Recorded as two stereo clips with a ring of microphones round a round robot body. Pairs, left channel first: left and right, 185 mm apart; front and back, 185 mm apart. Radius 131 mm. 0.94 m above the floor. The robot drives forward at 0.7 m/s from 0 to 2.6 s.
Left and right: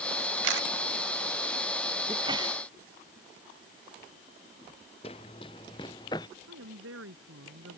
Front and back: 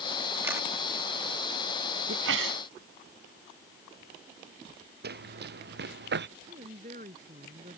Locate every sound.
0.4 s a camera shutter: 100° right; by 0.7 s 105° right
2.1 s a sneeze: 165° right
5.0 s running footsteps: 160° left; by 6.3 s 165° left
6.5 s a woman speaking: 115° right